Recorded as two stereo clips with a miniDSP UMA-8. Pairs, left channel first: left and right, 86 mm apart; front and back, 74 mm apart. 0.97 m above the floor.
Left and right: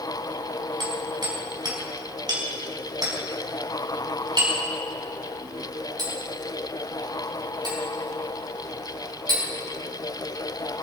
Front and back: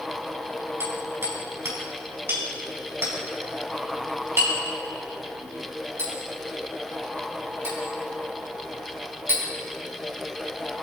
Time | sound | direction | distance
0.8 | hammering | 125° right | 5 m